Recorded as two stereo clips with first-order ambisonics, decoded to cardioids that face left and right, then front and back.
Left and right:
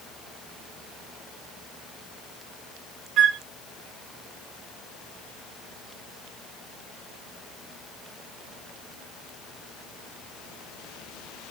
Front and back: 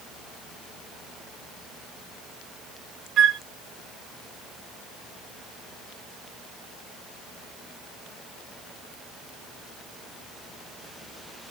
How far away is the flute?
About 0.8 m.